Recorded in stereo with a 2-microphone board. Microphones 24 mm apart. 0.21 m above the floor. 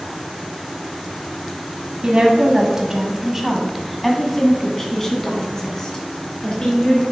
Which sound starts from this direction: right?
A woman speaking, at 2.0 s.